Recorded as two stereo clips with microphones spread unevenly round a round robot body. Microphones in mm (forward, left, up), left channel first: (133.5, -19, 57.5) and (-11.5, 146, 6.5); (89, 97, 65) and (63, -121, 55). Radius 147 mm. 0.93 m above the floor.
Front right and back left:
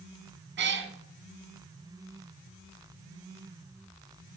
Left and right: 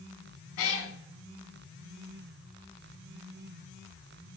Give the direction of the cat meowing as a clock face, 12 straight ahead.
9 o'clock.